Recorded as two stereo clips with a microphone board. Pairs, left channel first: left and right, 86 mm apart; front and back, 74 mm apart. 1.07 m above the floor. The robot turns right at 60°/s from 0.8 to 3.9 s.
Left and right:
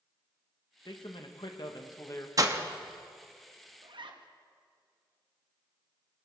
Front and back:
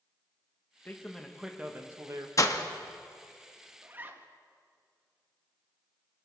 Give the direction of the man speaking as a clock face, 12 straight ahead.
10 o'clock.